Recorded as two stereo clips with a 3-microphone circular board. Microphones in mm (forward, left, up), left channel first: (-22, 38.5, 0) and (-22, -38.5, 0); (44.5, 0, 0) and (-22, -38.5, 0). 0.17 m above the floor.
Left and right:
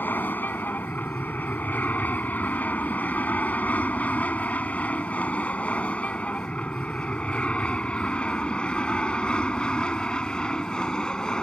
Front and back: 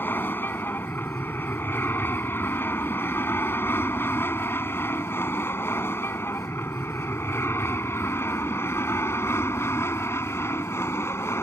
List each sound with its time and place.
0.0 s an aircraft: 55° left; by 11.4 s 20° left